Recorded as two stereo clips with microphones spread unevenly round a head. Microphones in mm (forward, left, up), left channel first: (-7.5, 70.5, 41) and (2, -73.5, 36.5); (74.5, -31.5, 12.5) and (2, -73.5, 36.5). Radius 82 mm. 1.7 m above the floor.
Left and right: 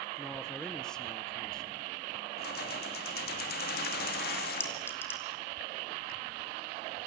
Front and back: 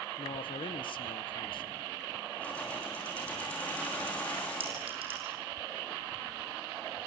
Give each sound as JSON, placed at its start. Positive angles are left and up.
{"t": 0.2, "sound": "a man speaking", "azimuth_deg": 10, "distance_m": 1.5}
{"t": 2.4, "sound": "keys jangling", "azimuth_deg": 115, "distance_m": 2.5}
{"t": 4.6, "sound": "a clink", "azimuth_deg": 170, "distance_m": 2.5}